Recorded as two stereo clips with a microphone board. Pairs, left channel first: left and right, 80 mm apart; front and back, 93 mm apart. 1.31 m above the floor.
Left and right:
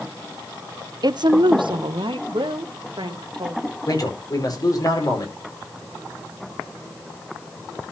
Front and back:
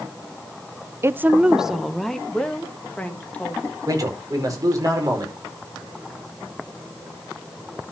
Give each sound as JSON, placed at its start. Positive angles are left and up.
{"t": 1.0, "sound": "a woman speaking", "azimuth_deg": -120, "distance_m": 0.5}
{"t": 3.9, "sound": "a man speaking", "azimuth_deg": 130, "distance_m": 4.5}